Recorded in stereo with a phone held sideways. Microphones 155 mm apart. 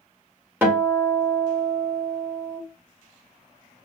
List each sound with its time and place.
0.6 s a guitar: 15° right (ahead or behind), 0.9 m